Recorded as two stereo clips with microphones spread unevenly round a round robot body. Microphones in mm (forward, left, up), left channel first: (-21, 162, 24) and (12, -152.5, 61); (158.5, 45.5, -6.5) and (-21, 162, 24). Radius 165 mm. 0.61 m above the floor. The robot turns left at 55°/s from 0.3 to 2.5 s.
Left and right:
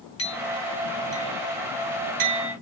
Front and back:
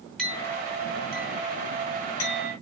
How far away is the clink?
About 6 m.